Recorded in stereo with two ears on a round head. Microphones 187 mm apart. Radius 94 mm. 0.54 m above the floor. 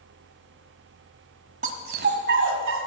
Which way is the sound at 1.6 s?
40° right (ahead or behind).